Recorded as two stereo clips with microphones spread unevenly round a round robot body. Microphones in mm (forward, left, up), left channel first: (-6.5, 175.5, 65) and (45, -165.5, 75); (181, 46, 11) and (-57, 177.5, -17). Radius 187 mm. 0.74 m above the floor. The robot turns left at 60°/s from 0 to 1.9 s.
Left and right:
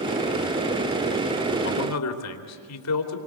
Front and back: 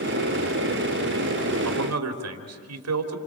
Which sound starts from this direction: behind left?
A man speaking, at 1.6 s.